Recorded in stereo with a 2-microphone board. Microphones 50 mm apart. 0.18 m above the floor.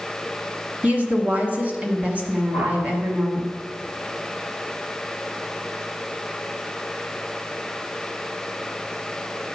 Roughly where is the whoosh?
Right.